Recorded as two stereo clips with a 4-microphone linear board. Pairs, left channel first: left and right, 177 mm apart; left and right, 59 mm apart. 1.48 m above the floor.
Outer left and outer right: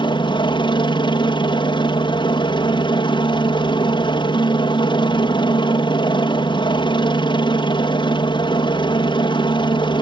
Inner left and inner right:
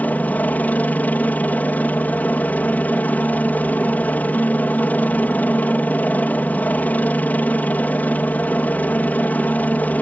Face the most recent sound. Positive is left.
turn(degrees=25)  # may be behind; listen again after turning